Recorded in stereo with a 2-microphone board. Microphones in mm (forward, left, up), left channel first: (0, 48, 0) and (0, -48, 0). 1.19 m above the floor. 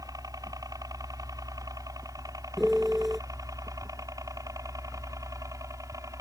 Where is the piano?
Centre (ahead or behind).